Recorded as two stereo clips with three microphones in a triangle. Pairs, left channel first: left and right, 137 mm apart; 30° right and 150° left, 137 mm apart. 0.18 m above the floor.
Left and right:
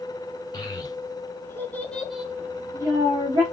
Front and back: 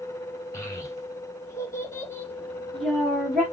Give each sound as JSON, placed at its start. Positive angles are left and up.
{"t": 0.5, "sound": "a child speaking", "azimuth_deg": 35, "distance_m": 1.1}